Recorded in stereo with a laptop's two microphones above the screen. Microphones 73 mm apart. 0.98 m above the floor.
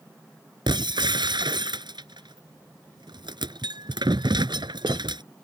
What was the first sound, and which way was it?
Breaking glass, 85° right.